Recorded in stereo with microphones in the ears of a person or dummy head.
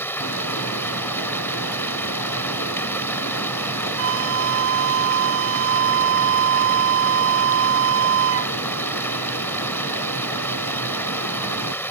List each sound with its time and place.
0.0 s running water: 5° left (ahead or behind)
4.0 s a flute: 75° right (ahead or behind)